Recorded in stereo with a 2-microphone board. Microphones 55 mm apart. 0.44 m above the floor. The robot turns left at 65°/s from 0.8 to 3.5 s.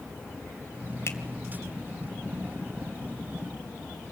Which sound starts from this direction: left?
A finger snap, at 1.1 s.